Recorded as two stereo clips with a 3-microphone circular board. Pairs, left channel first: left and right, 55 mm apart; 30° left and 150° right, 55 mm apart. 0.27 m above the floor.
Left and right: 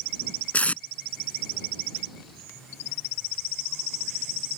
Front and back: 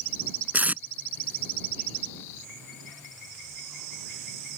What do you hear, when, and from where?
0.5 s tape being pulled: 150° left